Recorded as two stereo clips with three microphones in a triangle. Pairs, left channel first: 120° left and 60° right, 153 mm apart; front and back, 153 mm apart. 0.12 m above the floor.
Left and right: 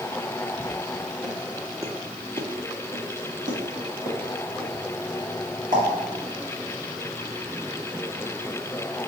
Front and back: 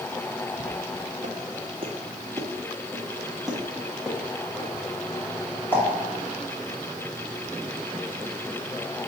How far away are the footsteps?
About 0.9 m.